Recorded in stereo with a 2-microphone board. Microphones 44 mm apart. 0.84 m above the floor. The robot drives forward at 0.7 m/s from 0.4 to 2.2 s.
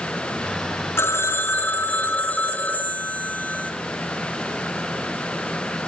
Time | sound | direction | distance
1.0 | a phone ringing | 75° left (ahead or behind) | 0.9 m